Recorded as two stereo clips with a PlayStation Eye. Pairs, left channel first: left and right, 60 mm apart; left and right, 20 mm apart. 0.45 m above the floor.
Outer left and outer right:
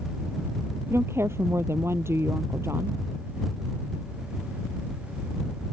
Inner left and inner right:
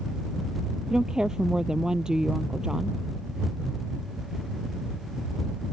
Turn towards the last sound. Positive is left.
turn(degrees=-45)  # may be behind; listen again after turning